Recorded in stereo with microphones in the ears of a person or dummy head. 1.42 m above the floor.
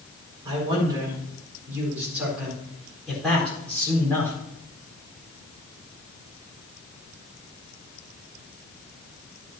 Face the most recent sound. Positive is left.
turn(degrees=15)  # may be behind; listen again after turning